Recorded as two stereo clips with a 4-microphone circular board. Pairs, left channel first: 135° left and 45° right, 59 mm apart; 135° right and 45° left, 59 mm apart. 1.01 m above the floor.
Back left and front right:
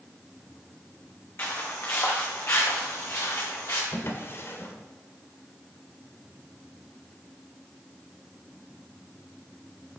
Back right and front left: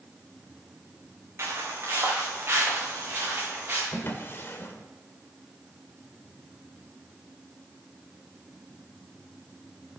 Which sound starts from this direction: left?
Footsteps, at 1.4 s.